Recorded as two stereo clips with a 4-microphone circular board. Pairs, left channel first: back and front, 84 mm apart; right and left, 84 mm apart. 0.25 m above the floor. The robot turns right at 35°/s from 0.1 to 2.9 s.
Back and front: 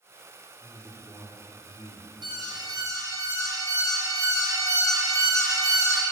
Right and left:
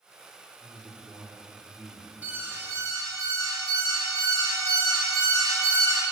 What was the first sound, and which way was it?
A man speaking, 125° left.